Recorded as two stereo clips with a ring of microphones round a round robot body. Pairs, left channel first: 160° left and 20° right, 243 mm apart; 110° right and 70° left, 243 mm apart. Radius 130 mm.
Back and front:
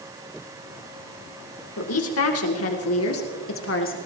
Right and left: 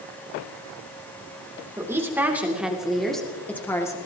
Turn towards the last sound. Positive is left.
turn(degrees=175)